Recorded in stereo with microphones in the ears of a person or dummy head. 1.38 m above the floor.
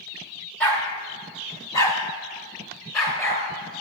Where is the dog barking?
5° left (ahead or behind), 0.9 m; by 3.4 s 15° left (ahead or behind), 2.5 m.